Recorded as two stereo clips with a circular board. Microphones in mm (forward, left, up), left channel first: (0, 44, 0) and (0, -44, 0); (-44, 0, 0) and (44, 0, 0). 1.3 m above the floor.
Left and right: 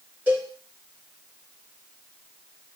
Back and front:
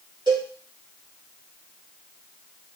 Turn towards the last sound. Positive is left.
turn(degrees=-20)